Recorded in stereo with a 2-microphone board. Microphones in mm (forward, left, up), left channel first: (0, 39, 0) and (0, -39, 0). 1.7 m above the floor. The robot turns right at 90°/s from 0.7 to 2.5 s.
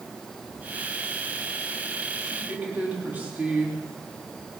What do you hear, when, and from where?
2.2 s a woman speaking: centre (ahead or behind), 4 m; by 3.9 s 20° right (ahead or behind), 4 m